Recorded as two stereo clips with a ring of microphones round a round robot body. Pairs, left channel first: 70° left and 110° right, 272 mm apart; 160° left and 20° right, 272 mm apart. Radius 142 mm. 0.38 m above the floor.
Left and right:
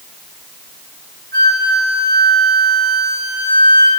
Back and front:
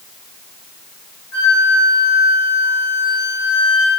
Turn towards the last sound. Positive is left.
turn(degrees=-170)